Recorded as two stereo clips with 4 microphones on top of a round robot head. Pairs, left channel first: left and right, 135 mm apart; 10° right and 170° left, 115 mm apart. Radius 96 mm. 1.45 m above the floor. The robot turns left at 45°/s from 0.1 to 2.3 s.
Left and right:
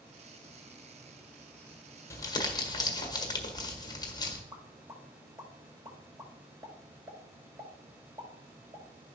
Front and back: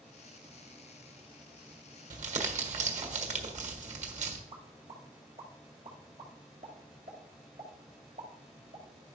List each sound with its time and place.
2.1 s crumpling: 160° left, 1.5 m; by 4.4 s 155° left, 1.5 m
4.5 s a pop: 155° right, 2 m